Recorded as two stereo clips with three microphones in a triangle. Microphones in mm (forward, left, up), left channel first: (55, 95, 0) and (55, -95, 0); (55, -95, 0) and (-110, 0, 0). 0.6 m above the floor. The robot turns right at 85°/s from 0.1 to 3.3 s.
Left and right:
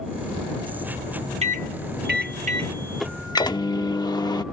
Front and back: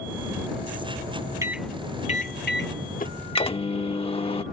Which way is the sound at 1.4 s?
135° right.